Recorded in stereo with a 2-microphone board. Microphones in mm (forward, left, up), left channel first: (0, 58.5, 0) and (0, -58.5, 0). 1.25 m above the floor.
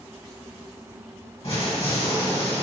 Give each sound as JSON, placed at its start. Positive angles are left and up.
{"t": 1.4, "sound": "an explosion", "side_deg": 55, "distance_m": 1.3}